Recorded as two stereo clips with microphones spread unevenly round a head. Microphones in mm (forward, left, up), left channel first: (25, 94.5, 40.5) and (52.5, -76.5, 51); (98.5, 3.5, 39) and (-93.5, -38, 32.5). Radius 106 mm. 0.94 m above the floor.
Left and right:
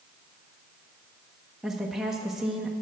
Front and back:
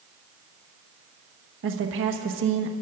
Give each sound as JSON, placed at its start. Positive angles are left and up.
{"t": 1.6, "sound": "a woman speaking", "azimuth_deg": -170, "distance_m": 1.2}